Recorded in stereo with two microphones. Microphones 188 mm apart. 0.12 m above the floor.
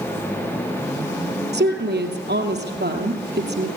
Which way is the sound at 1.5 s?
65° right (ahead or behind).